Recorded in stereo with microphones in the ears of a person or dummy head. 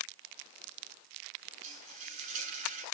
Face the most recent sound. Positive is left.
turn(degrees=-45)  # may be behind; listen again after turning